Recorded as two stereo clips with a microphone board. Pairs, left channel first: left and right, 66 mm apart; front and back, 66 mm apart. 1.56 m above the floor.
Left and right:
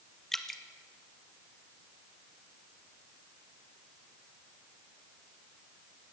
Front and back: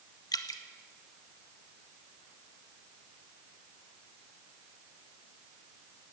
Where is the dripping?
5° left, 1.4 m.